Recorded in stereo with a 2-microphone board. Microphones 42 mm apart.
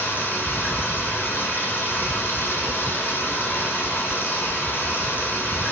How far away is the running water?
About 6 m.